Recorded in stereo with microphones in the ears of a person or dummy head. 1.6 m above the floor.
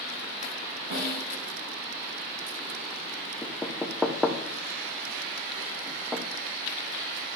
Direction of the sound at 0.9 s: 55° right (ahead or behind).